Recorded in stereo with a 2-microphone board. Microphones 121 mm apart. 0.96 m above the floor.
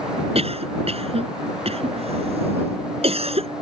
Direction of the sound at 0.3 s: 55° right (ahead or behind).